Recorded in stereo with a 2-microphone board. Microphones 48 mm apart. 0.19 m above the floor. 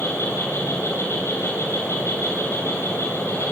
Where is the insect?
70° left (ahead or behind), 9 m.